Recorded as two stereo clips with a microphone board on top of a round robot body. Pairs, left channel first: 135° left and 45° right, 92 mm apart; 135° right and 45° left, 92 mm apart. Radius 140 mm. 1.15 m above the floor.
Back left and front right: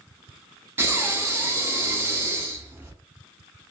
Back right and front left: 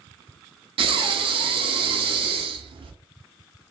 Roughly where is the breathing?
Ahead.